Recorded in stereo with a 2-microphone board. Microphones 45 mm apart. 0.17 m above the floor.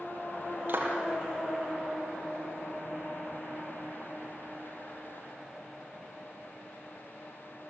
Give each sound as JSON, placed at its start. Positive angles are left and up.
{"t": 0.7, "sound": "a clap", "side_deg": -50, "distance_m": 3.5}